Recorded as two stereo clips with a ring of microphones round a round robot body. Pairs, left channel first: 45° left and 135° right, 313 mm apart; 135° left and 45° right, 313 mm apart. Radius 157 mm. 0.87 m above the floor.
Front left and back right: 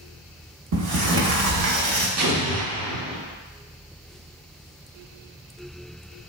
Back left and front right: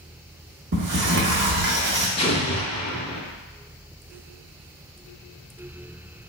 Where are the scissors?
No scissors in this recording.